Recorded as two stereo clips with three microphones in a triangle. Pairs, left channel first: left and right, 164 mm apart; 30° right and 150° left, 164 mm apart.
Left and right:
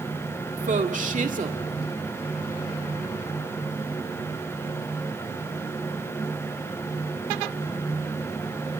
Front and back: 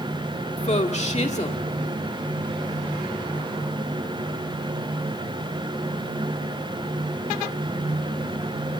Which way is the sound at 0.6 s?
65° right.